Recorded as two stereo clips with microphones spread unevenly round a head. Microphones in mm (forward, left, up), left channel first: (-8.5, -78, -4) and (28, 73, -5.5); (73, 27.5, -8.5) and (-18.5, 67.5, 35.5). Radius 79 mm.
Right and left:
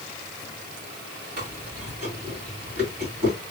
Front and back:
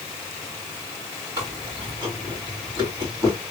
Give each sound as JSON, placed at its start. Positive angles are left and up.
{"t": 1.4, "sound": "chewing", "azimuth_deg": 115, "distance_m": 3.5}